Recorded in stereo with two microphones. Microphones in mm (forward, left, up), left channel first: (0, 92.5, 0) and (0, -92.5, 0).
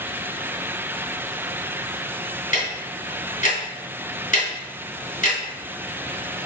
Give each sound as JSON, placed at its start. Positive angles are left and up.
{"t": 2.5, "sound": "ticking", "side_deg": 45, "distance_m": 2.5}